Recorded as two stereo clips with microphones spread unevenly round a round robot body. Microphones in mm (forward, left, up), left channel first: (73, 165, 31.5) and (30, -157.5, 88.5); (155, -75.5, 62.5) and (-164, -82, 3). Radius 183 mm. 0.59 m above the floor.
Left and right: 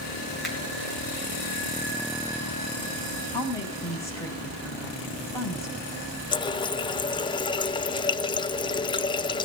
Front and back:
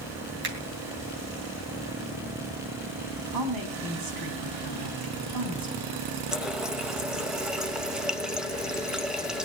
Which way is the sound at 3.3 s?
165° left.